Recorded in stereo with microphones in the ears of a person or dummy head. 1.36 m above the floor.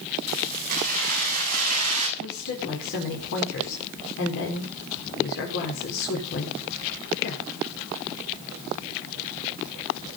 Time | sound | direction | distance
0.3 | keys jangling | 50° right (ahead or behind) | 7.5 m
2.2 | a woman speaking | 70° left (ahead or behind) | 4.5 m